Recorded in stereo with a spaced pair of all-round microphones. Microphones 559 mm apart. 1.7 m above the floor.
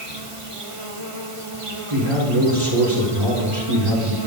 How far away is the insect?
About 2 m.